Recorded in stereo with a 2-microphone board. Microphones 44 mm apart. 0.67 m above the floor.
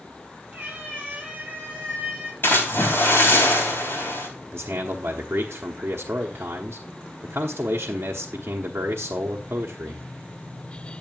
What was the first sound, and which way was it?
A cat meowing, 30° right (ahead or behind).